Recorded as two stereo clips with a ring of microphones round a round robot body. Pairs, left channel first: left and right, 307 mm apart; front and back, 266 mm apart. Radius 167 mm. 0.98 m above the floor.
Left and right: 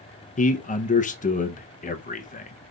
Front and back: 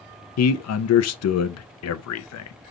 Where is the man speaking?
25° left, 0.5 m.